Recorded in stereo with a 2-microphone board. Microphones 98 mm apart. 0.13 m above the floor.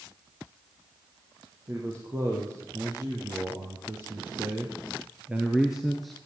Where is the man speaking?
35° right (ahead or behind), 5.5 m; by 6.2 s 5° left (ahead or behind), 2 m.